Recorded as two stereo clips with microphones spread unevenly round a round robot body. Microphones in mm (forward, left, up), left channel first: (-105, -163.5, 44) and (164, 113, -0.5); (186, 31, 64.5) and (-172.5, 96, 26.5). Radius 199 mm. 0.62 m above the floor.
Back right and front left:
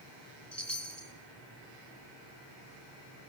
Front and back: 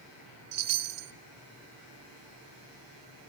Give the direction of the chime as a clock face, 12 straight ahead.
7 o'clock.